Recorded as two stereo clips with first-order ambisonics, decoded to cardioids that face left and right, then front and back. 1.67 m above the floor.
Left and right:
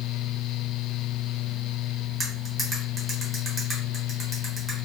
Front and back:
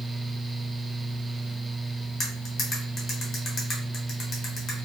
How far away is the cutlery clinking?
About 0.9 m.